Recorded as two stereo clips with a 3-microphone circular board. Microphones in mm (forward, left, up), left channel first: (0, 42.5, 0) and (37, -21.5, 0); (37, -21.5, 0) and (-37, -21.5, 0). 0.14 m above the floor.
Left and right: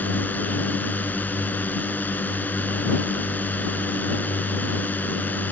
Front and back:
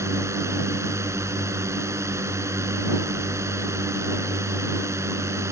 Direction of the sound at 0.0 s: 170° left.